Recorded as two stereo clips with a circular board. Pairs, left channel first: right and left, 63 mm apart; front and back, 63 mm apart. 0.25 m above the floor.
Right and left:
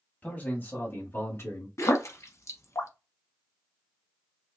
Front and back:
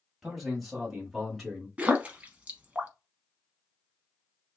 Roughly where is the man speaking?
Right.